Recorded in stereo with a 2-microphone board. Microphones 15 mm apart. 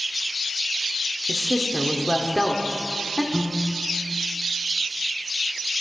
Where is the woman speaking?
10° right (ahead or behind), 1.4 m.